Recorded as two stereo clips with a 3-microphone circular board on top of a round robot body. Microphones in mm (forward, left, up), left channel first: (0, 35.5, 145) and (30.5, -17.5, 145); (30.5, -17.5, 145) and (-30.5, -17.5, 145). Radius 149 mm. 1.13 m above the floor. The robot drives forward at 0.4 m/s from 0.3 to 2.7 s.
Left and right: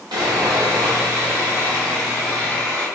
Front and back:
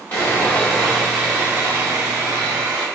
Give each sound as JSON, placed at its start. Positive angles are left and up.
{"t": 0.1, "sound": "sawing", "azimuth_deg": -55, "distance_m": 0.6}